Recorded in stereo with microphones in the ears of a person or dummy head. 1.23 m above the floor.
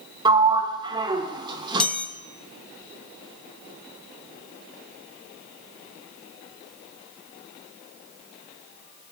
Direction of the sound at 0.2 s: 30° right (ahead or behind).